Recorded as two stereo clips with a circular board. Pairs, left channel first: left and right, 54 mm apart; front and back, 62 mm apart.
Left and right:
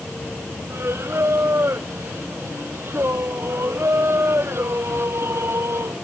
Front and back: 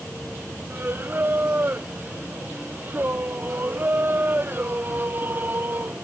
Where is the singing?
125° right.